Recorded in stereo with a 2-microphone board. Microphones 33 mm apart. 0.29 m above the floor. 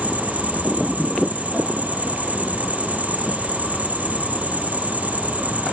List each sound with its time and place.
0.0 s an insect: 50° right (ahead or behind), 2.5 m